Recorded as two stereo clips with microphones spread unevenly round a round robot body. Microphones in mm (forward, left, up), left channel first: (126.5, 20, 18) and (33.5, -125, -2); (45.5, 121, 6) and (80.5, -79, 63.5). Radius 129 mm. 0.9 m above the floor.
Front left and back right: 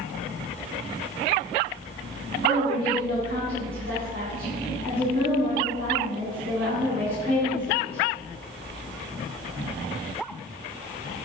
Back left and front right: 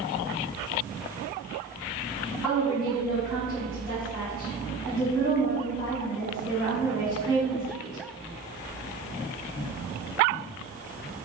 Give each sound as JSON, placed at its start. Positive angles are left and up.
{"t": 2.4, "sound": "a woman speaking", "azimuth_deg": 180, "distance_m": 5.5}